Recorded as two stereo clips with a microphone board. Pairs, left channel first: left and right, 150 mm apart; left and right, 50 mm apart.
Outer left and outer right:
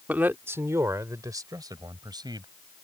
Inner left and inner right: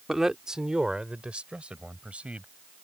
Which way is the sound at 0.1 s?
10° right (ahead or behind).